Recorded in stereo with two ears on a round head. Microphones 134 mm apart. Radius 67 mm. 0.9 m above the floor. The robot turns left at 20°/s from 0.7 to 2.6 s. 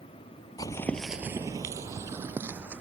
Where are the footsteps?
25° left (ahead or behind); by 2.8 s 10° right (ahead or behind).